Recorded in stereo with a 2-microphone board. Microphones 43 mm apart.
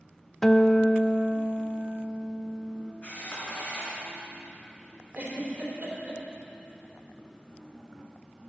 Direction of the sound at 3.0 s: 40° left (ahead or behind).